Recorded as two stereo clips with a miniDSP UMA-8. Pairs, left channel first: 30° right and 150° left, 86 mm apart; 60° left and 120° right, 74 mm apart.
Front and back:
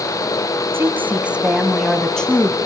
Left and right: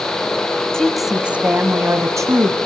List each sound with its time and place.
0.7 s a woman speaking: 135° left, 1.6 m; by 2.6 s 105° right, 2.5 m